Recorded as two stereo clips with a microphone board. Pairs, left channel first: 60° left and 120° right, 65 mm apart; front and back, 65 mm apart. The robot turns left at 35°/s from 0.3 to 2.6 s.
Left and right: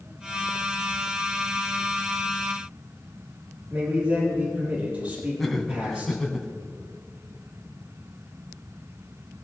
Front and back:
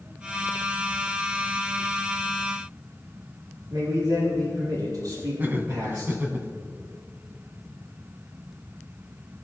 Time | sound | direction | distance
3.7 | a man speaking | straight behind | 4.5 m
5.4 | laughter | 145° left | 1.6 m